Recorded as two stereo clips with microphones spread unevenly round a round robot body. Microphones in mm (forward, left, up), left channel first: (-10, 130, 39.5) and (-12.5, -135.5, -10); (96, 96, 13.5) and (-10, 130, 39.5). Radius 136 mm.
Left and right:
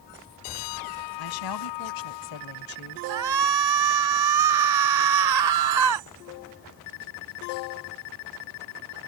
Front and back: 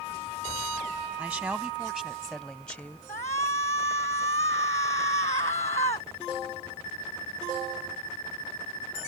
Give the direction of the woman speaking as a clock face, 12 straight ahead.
9 o'clock.